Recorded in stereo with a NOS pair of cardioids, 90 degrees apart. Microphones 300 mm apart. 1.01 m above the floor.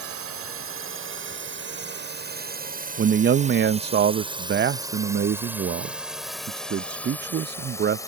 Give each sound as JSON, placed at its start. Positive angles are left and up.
{"t": 0.0, "sound": "a drone", "azimuth_deg": -50}
{"t": 3.0, "sound": "a man speaking", "azimuth_deg": -35}